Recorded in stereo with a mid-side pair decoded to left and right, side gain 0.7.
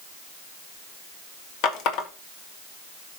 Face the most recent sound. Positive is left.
turn(degrees=60)